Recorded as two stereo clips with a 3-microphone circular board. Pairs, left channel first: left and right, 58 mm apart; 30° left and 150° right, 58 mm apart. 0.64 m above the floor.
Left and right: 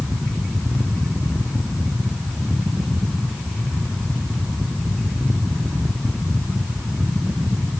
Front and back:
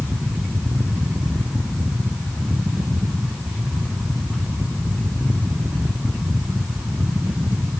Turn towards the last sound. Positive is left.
No sound to turn to.